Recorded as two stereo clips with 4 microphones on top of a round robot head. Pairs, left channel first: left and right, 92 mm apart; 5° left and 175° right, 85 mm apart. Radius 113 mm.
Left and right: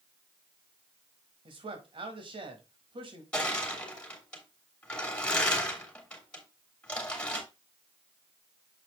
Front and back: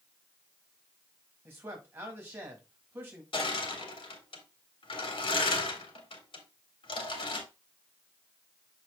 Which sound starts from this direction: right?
A man speaking, at 1.4 s.